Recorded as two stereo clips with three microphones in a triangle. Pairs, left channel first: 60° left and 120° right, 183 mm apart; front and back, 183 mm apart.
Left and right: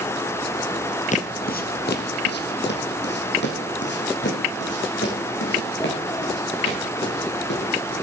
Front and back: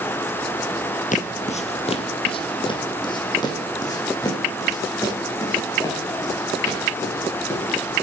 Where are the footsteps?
30° left, 0.8 m; by 7.7 s 75° left, 5 m.